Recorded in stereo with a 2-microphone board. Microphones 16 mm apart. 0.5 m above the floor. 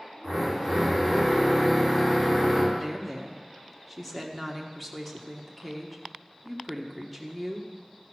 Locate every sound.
0.2 s a drill: 40° left (ahead or behind), 4 m
2.7 s a woman speaking: 5° left (ahead or behind), 1.2 m